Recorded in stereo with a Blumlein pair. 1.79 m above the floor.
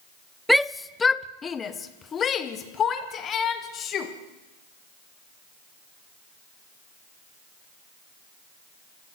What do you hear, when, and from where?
0.5 s a shout: straight ahead, 0.6 m; by 4.1 s 30° left, 3 m